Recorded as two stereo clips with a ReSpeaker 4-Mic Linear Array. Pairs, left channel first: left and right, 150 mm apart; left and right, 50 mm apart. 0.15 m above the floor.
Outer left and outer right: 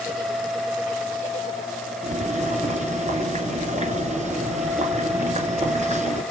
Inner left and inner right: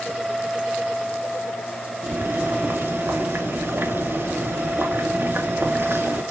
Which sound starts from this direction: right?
Boiling, at 2.0 s.